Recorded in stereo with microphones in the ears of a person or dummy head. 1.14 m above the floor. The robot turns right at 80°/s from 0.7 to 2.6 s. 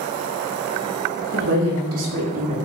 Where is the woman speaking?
130° right, 0.9 m; by 2.6 s 30° right, 0.9 m.